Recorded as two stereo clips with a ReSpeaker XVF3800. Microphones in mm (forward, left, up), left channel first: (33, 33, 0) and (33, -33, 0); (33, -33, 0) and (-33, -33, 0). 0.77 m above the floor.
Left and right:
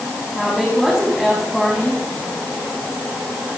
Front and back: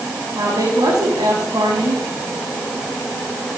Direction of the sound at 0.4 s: Straight behind.